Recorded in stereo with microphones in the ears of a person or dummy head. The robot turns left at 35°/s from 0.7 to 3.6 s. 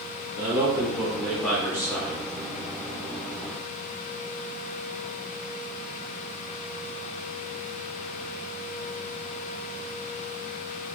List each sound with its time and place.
0.4 s a man speaking: 155° right, 0.8 m; by 2.2 s 150° left, 0.8 m